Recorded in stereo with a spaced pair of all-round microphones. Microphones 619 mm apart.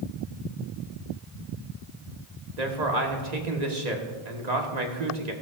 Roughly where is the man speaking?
Right.